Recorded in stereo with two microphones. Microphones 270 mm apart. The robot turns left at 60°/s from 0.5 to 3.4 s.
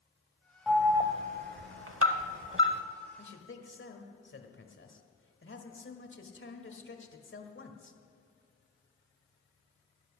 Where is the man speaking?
45° left (ahead or behind), 1.5 m.